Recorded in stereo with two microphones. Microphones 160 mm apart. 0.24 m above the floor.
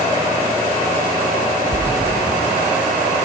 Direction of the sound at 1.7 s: 30° left (ahead or behind).